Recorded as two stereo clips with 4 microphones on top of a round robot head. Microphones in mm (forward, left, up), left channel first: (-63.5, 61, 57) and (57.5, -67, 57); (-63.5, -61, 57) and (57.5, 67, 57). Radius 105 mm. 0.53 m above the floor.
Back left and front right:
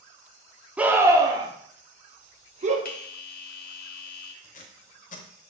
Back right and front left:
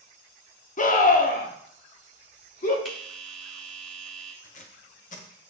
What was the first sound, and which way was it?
A scream, 125° right.